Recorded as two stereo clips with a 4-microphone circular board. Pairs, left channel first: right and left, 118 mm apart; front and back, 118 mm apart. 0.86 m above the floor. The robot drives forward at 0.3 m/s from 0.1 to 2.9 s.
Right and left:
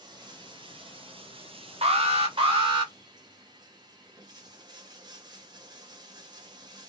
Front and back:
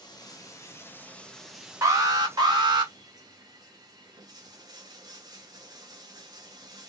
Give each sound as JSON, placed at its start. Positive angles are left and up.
{"t": 0.0, "sound": "running water", "azimuth_deg": 45, "distance_m": 0.7}
{"t": 1.8, "sound": "an alarm", "azimuth_deg": 120, "distance_m": 0.9}